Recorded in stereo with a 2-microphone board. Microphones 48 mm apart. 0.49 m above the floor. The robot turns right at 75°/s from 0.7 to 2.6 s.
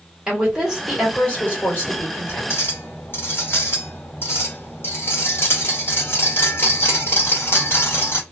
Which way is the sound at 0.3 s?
20° right.